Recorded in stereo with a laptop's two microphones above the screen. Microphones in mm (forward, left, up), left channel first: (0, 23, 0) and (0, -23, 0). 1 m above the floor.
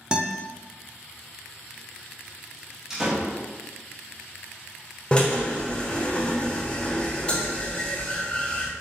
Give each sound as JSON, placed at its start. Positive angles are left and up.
{"t": 0.1, "sound": "a guitar", "side_deg": -20, "distance_m": 0.5}
{"t": 2.9, "sound": "a door slam", "side_deg": -10, "distance_m": 0.8}
{"t": 5.1, "sound": "a drill", "side_deg": 25, "distance_m": 0.6}